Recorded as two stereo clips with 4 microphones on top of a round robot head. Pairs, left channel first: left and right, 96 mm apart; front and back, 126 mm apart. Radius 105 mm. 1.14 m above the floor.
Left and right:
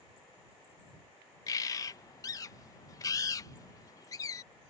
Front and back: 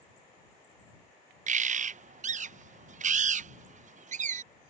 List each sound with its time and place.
1.5 s a bird: 155° left